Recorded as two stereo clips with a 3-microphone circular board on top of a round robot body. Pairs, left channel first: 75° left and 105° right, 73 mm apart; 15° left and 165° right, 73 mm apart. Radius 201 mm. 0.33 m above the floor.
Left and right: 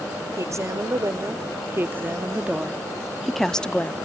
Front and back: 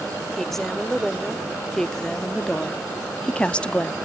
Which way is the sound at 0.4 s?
70° right.